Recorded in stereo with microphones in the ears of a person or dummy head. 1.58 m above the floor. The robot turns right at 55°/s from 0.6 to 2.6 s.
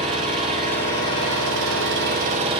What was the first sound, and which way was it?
An engine running, 140° right.